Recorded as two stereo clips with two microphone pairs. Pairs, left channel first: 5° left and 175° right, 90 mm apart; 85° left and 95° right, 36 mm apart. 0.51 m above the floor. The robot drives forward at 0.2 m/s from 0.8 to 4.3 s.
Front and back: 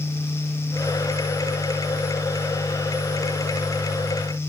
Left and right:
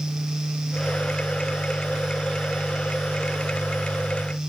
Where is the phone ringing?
No phone ringing in this recording.